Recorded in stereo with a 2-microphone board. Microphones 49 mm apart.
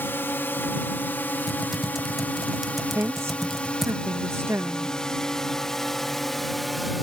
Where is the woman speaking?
80° right.